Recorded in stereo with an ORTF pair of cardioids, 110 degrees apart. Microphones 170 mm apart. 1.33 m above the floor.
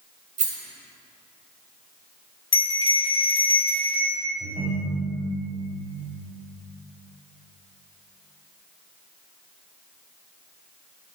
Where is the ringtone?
40° right, 3.5 m.